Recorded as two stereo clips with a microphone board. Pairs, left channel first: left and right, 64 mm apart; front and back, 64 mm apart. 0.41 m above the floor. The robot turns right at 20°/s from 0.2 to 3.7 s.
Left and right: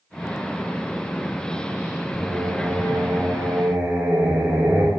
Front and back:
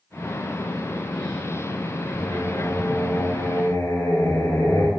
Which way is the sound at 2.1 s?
65° right.